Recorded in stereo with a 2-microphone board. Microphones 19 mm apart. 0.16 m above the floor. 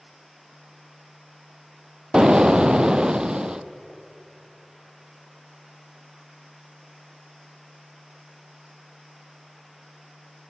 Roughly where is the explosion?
Right.